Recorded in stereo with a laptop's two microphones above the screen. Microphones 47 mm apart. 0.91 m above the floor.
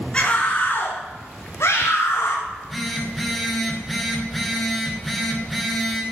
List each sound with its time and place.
0.1 s a scream: 20° left (ahead or behind), 2.5 m; by 2.4 s 65° left (ahead or behind), 3 m
2.5 s a phone buzzing: 5° right (ahead or behind), 5 m